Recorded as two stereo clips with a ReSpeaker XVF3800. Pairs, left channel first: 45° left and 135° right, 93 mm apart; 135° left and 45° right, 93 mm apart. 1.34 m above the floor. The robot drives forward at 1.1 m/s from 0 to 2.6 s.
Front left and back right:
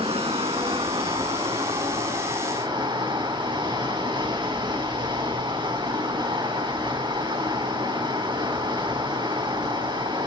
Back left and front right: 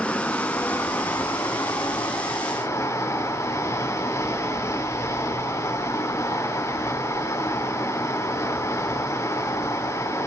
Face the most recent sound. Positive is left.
turn(degrees=-165)